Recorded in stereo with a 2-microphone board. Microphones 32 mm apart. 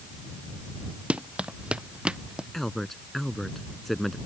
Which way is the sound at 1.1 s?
35° right (ahead or behind).